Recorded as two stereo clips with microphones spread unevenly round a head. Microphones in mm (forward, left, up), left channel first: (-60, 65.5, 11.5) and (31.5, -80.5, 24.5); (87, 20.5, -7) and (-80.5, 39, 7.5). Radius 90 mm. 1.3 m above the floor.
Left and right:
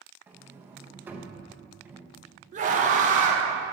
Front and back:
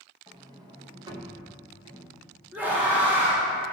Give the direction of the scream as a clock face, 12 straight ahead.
3 o'clock.